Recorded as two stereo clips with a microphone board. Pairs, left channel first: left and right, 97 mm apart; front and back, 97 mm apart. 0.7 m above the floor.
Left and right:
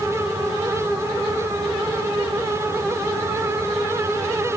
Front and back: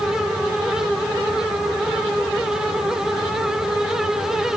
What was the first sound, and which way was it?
Only background noise.